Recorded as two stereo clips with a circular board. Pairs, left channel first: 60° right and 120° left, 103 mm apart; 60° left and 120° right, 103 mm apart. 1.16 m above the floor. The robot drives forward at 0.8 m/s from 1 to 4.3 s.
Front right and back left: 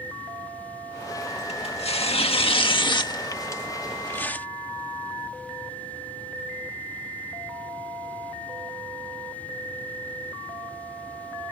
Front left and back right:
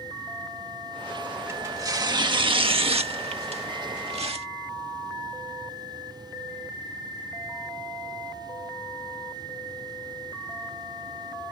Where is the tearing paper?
60° right; by 4.5 s 130° right.